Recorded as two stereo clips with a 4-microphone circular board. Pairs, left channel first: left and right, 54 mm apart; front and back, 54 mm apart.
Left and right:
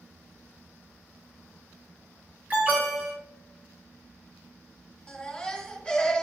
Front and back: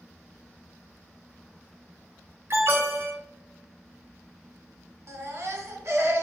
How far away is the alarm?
About 3 m.